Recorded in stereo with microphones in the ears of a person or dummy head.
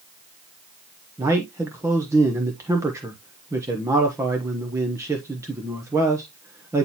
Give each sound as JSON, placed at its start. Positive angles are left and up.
{"t": 1.2, "sound": "a man speaking", "side_deg": -10, "distance_m": 0.9}